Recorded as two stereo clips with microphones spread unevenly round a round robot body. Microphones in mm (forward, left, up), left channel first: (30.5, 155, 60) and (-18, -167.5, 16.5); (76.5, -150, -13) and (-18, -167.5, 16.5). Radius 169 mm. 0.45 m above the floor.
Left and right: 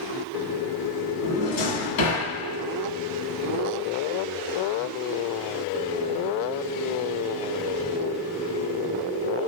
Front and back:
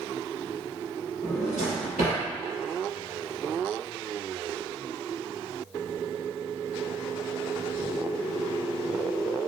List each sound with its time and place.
1.2 s a drawer: 85° left, 1.5 m